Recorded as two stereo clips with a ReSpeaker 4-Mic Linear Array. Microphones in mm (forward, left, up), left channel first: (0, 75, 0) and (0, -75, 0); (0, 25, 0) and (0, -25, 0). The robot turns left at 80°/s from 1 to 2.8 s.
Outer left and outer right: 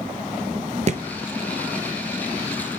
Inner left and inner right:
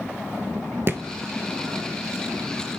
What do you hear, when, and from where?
0.9 s a thud: 50° right (ahead or behind), 0.6 m; by 1.0 s 45° right (ahead or behind), 0.6 m